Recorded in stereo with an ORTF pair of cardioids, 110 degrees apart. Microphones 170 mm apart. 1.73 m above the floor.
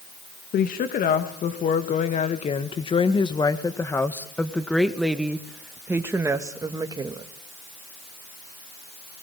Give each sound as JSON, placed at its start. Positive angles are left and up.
{"t": 0.5, "sound": "a woman speaking", "azimuth_deg": 60, "distance_m": 2.5}